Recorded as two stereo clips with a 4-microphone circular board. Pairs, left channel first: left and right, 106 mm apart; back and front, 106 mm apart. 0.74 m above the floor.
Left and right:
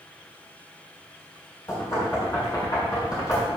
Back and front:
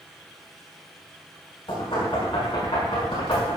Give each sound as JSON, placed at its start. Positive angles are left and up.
{"t": 1.7, "sound": "knocking", "azimuth_deg": 145, "distance_m": 6.0}